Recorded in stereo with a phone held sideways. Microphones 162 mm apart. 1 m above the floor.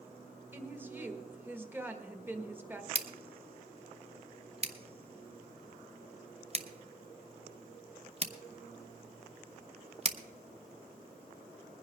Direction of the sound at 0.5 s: 15° right (ahead or behind).